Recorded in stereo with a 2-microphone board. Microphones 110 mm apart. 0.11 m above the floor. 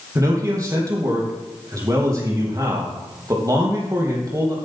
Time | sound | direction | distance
0.1 | a man speaking | 30° right (ahead or behind) | 3.5 m